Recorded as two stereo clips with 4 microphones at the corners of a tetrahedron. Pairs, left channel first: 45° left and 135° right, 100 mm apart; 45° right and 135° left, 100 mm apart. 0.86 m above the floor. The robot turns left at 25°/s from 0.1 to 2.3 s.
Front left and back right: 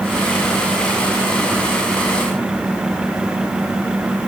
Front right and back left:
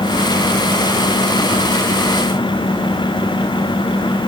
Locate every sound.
Only background noise.